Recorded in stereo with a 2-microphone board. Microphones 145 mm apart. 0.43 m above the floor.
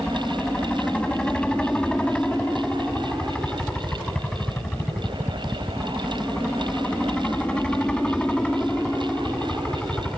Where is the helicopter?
5° left (ahead or behind).